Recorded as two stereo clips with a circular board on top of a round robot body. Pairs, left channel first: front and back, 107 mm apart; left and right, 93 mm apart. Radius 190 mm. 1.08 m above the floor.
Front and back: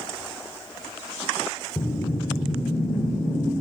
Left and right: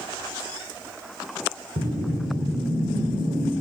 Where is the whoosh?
95° right, 5 m.